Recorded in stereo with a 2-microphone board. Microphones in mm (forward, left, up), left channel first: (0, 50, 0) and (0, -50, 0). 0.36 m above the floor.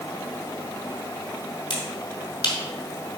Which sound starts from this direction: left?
A finger snap, at 1.7 s.